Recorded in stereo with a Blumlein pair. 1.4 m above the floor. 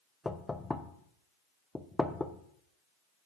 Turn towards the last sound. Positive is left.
turn(degrees=10)